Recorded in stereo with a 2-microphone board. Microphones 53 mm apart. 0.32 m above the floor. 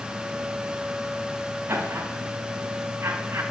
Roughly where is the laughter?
Right.